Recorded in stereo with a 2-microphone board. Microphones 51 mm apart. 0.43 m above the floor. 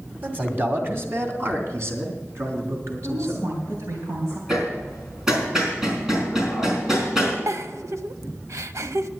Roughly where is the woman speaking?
Right.